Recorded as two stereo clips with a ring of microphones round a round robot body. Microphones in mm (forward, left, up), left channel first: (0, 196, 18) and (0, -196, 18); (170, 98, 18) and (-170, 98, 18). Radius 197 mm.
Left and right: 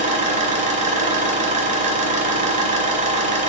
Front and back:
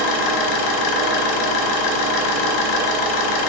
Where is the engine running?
15° right, 1.1 m.